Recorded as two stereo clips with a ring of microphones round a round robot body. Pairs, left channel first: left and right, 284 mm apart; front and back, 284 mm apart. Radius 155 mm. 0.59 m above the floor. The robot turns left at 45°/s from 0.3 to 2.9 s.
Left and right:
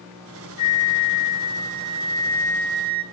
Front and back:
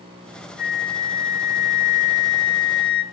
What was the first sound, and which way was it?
A flute, 60° left.